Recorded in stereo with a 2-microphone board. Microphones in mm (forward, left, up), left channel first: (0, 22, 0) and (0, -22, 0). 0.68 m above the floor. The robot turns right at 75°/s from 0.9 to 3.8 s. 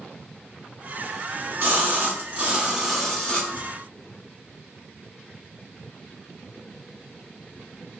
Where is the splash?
120° right, 0.9 m; by 3.7 s 55° left, 0.9 m.